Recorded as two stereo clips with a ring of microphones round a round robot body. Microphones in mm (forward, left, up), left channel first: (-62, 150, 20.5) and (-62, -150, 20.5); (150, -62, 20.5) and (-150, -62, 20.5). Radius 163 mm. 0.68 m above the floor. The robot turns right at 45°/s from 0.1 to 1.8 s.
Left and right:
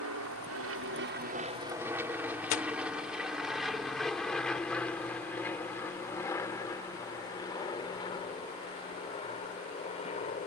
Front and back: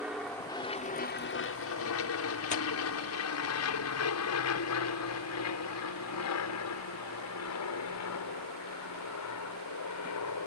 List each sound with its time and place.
0.0 s an aircraft: 95° right; by 10.5 s 20° left
2.5 s tearing paper: 60° left